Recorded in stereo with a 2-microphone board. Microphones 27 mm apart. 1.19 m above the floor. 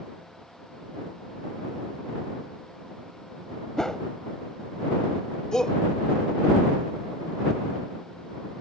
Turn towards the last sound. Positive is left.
turn(degrees=25)  # may be behind; listen again after turning